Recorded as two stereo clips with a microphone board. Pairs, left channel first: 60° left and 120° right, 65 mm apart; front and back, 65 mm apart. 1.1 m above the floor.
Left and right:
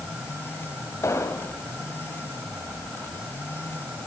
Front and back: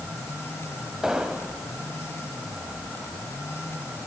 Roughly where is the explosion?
Left.